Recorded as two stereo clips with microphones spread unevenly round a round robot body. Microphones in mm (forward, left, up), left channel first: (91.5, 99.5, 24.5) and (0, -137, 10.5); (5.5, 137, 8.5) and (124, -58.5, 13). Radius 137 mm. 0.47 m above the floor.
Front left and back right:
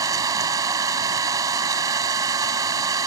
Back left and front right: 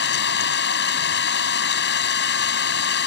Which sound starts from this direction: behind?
An engine running, at 0.0 s.